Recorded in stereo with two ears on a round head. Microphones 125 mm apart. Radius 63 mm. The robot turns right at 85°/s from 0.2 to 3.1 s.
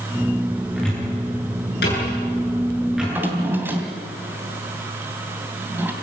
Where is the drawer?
5° right (ahead or behind), 2.5 m; by 5.9 s 15° right (ahead or behind), 2.5 m.